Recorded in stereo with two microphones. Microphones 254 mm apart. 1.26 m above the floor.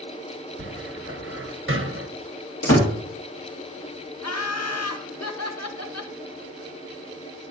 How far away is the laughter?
About 1.3 m.